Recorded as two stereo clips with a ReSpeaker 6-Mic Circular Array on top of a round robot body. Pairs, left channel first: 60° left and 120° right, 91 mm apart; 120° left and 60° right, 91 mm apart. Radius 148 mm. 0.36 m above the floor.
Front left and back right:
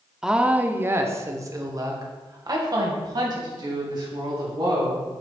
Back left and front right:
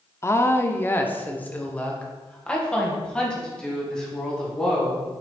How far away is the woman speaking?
About 0.9 m.